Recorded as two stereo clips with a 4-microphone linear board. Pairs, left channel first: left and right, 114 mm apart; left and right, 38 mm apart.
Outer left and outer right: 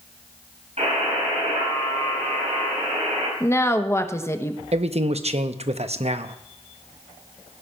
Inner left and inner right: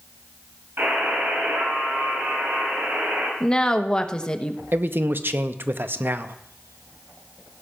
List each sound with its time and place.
0.8 s a buzzer: 75° right (ahead or behind), 5.5 m
3.4 s a woman speaking: 25° left (ahead or behind), 0.9 m
4.7 s a man speaking: 65° right (ahead or behind), 0.7 m